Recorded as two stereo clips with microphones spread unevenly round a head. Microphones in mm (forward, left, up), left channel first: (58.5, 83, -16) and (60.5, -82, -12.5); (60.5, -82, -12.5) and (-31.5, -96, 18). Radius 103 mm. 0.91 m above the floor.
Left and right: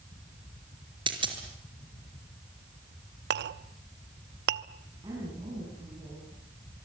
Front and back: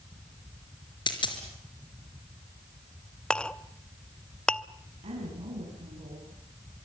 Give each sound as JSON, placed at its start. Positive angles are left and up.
{"t": 1.1, "sound": "a dropped coin", "azimuth_deg": -30, "distance_m": 4.5}
{"t": 3.3, "sound": "a clink", "azimuth_deg": -75, "distance_m": 0.8}
{"t": 5.0, "sound": "a woman speaking", "azimuth_deg": -160, "distance_m": 6.5}